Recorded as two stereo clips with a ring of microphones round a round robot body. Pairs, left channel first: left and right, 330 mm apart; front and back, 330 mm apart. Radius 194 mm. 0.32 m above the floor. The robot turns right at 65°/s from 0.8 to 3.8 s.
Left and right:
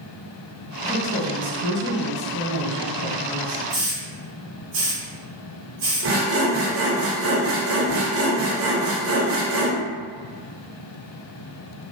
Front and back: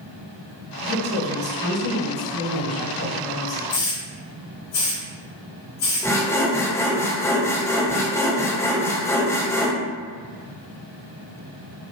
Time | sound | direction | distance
0.8 | a woman speaking | 130° right | 1.9 m
3.7 | a hiss | 40° right | 1.4 m
6.0 | sawing | 80° right | 0.7 m